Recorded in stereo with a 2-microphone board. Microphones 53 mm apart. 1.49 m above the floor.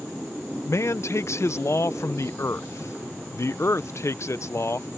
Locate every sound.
0.7 s a man speaking: 60° left (ahead or behind)